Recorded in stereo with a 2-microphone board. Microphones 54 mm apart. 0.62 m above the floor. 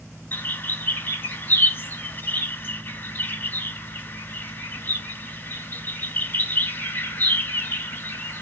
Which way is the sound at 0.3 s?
40° left (ahead or behind).